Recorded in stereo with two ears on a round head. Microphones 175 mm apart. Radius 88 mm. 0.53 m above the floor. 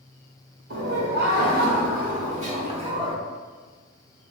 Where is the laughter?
60° right (ahead or behind), 2.0 m; by 3.2 s 25° right (ahead or behind), 1.3 m.